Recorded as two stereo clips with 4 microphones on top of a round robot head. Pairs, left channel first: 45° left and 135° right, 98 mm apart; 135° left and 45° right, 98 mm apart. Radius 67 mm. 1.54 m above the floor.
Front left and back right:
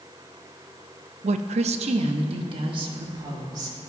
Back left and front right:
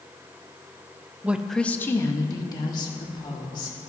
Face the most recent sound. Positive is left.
turn(degrees=175)